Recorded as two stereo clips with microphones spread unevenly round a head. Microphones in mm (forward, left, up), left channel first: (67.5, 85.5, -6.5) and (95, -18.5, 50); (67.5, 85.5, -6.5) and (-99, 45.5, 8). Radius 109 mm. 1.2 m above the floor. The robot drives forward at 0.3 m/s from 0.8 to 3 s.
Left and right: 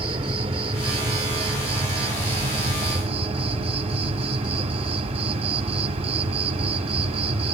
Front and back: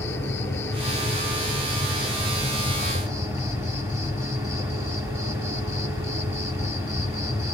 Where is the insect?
65° right, 1.7 m; by 7.5 s 90° right, 1.5 m.